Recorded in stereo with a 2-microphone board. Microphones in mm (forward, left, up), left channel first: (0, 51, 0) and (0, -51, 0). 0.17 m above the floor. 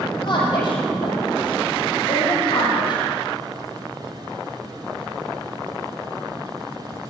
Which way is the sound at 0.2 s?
50° left (ahead or behind).